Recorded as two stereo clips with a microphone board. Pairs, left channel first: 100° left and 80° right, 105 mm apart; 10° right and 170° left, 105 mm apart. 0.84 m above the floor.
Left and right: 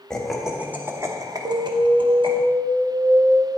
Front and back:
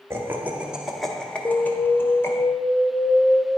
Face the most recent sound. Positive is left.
turn(degrees=-75)